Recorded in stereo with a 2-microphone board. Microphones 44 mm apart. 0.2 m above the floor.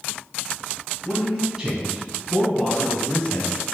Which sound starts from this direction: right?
A man speaking, at 1.1 s.